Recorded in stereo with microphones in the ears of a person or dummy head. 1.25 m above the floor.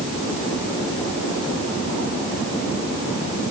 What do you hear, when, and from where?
Only background noise.